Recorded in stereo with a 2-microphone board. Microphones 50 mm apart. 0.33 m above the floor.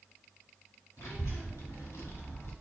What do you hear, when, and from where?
1.0 s a child speaking: 70° left (ahead or behind), 2 m; by 2.5 s 55° left (ahead or behind), 1.2 m